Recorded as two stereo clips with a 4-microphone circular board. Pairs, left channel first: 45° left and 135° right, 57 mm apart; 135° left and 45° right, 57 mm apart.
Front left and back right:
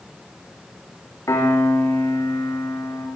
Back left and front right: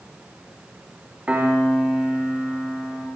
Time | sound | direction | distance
1.3 | a piano | 20° left | 8 m